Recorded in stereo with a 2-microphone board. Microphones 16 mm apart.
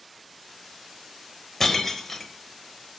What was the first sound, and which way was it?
Breaking glass, 25° left (ahead or behind).